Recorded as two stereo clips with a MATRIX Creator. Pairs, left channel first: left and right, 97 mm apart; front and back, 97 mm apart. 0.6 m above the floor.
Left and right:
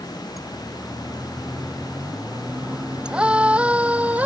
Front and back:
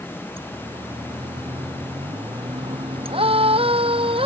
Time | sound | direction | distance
0.4 | a siren | straight behind | ?